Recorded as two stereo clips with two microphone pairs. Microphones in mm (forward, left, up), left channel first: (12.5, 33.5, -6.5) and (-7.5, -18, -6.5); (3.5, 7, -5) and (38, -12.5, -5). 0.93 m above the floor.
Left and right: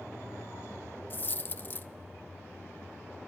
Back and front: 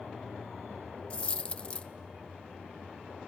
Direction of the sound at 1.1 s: 105° left.